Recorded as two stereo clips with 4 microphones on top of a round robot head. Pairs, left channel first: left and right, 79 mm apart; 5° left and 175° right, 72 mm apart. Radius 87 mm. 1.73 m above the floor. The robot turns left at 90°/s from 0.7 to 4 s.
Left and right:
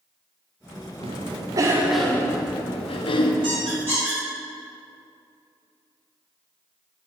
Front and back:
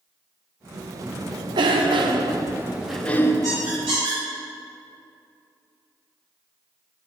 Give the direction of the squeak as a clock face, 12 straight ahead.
4 o'clock.